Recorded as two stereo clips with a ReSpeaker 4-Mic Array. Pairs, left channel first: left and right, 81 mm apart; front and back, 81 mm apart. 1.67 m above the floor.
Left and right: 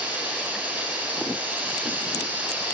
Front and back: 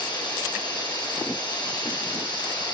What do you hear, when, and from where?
0.0 s running water: 15° right, 9.5 m